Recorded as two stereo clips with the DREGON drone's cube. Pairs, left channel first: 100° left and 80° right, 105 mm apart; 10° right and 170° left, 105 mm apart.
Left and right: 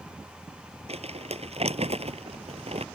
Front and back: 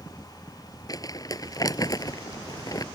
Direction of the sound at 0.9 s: 65° right.